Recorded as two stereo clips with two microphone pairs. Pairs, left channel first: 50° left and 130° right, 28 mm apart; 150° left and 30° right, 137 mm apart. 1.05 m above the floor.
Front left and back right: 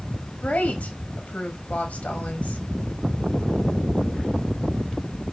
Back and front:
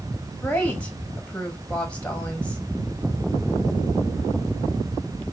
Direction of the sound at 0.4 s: 70° left.